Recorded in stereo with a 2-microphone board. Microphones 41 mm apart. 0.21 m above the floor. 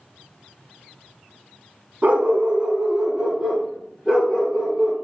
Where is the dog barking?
40° right (ahead or behind), 0.7 m; by 4.9 s 5° left (ahead or behind), 2 m.